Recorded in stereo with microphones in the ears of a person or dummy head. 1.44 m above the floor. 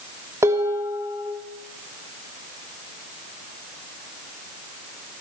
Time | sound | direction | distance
0.4 | dishes clattering | 15° right (ahead or behind) | 2.5 m